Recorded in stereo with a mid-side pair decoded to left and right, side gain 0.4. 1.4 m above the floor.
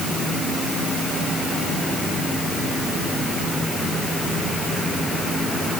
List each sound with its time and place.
Only background noise.